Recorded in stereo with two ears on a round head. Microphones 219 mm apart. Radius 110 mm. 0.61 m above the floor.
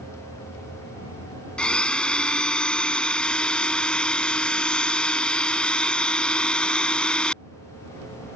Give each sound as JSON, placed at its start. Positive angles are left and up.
{"t": 1.6, "sound": "a blender", "side_deg": 5}